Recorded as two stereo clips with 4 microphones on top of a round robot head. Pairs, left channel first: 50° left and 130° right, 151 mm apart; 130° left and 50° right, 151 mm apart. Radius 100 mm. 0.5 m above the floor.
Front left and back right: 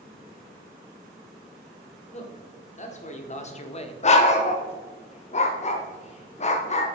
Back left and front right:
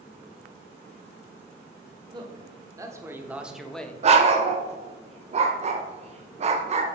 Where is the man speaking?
10° left, 1.5 m; by 3.9 s 60° left, 0.8 m.